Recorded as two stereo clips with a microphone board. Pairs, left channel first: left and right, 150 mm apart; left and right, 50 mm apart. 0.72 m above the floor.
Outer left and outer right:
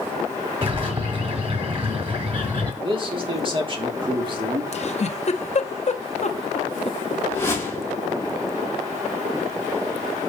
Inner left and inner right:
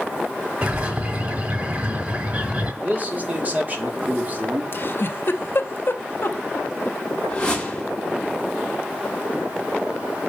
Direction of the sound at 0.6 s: 40° right (ahead or behind).